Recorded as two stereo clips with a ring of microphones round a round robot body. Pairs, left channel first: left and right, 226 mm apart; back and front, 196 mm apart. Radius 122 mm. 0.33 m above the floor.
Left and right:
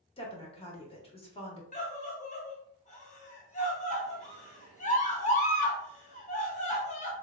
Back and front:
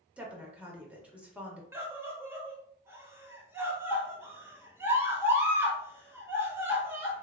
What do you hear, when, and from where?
0.2 s a woman speaking: 75° left, 1.1 m
1.7 s a scream: 70° left, 1.1 m